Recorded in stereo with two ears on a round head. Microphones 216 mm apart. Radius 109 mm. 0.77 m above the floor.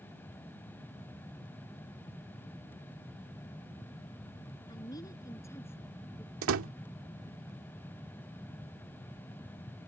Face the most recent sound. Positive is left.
turn(degrees=-60)  # may be behind; listen again after turning